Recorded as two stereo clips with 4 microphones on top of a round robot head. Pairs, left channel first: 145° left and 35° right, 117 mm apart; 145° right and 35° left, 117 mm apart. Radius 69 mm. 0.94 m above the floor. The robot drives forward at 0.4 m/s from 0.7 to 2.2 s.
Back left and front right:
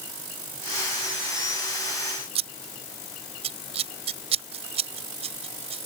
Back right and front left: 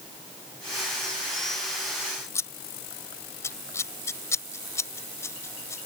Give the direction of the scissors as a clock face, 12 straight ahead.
3 o'clock.